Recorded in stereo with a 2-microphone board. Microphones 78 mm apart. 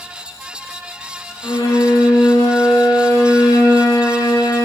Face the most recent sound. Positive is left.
turn(degrees=75)  # may be behind; listen again after turning